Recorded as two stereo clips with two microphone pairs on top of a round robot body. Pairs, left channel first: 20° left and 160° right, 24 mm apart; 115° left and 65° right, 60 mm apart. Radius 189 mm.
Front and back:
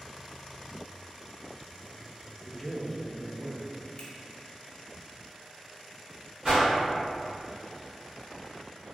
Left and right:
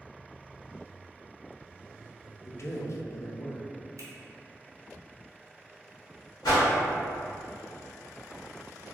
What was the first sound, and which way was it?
A man speaking, 105° left.